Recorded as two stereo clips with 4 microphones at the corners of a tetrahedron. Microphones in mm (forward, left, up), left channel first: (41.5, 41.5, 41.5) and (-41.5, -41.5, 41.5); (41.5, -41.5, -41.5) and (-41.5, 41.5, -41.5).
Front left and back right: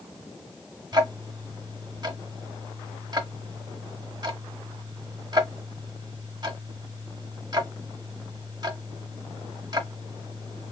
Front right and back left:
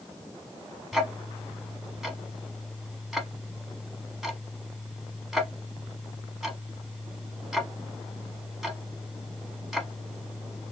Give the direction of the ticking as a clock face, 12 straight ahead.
5 o'clock.